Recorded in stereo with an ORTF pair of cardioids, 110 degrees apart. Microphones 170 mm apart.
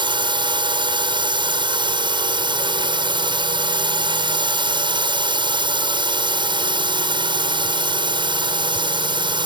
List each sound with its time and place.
0.0 s a drone: 30° right